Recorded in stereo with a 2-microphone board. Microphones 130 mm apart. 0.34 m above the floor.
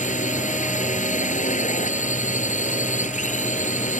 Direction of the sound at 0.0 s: 75° left (ahead or behind).